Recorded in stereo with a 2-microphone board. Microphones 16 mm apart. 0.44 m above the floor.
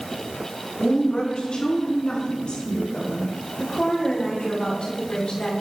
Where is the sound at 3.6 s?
65° left (ahead or behind), 6.5 m.